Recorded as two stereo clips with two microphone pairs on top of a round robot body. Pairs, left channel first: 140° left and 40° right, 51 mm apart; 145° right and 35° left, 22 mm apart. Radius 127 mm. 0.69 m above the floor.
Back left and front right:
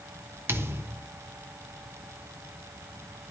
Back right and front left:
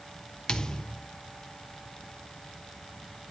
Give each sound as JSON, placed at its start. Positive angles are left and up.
{"t": 0.5, "sound": "a thud", "azimuth_deg": -85, "distance_m": 1.2}